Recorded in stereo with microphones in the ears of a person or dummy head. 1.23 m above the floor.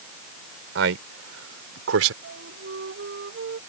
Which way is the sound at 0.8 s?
70° right (ahead or behind).